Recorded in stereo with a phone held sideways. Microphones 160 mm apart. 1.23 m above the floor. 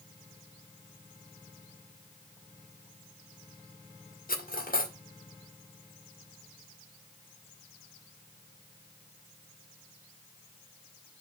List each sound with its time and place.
4.3 s cutlery clinking: 65° left (ahead or behind), 2 m